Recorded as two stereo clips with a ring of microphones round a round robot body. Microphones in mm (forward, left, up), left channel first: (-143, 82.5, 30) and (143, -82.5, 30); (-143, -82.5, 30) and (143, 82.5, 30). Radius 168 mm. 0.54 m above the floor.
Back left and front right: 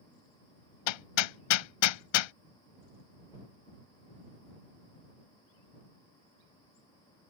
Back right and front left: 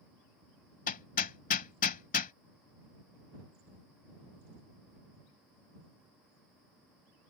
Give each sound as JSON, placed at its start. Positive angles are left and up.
{"t": 0.9, "sound": "hammering", "azimuth_deg": 145}